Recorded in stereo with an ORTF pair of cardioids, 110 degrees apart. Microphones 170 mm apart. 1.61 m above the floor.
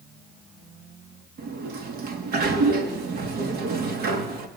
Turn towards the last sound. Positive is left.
turn(degrees=-65)